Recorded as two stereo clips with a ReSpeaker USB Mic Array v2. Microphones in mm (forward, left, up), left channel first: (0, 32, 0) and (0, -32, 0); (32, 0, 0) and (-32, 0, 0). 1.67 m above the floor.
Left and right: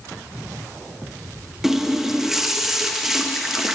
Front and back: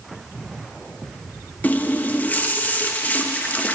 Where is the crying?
I don't hear crying.